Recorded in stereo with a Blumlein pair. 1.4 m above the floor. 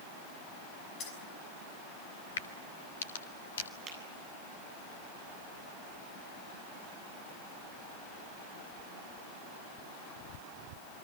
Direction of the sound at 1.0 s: 30° left.